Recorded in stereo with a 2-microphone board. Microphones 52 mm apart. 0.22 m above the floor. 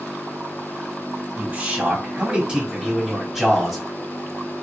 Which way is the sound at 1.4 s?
35° right (ahead or behind).